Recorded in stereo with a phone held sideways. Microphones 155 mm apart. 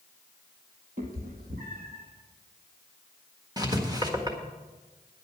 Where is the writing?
25° right (ahead or behind), 1.6 m.